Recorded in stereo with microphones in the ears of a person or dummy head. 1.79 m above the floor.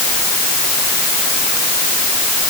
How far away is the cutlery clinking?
I don't hear cutlery clinking.